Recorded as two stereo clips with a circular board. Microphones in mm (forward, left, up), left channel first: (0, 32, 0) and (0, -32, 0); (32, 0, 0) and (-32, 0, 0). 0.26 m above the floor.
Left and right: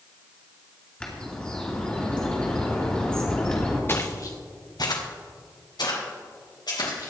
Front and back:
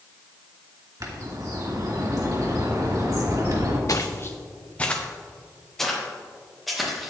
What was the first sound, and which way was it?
A bird, 165° left.